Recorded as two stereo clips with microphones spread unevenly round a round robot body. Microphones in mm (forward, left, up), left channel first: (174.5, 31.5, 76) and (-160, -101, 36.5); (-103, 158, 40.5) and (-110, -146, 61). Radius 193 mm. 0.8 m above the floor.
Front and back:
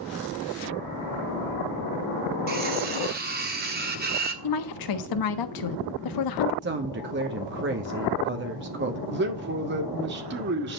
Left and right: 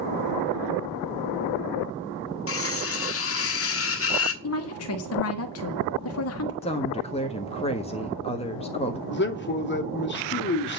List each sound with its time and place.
2.5 s cutlery clinking: 135° left, 1.2 m
4.4 s a woman speaking: 50° left, 1.3 m
6.6 s a woman speaking: 155° left, 1.4 m
9.1 s a man speaking: 140° left, 2 m